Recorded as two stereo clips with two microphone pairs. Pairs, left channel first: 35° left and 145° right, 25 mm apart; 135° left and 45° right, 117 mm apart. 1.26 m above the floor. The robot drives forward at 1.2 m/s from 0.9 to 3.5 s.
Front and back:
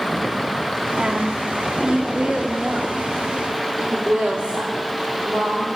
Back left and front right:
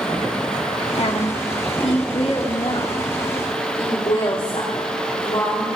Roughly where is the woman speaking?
Behind.